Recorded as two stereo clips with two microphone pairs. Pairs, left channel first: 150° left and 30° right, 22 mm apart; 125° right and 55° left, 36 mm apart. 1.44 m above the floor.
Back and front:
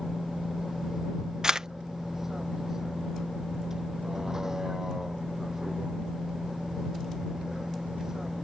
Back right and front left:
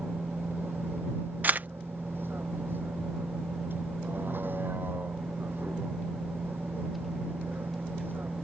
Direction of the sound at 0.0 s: 45° left.